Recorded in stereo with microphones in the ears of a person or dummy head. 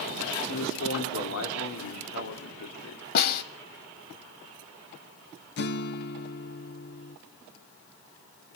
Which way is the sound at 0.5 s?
80° left.